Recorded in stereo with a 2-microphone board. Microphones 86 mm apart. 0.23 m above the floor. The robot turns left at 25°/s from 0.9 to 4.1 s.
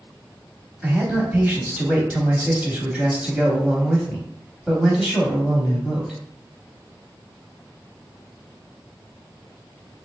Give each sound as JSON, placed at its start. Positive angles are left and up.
{"t": 0.8, "sound": "a man speaking", "side_deg": -20, "distance_m": 1.0}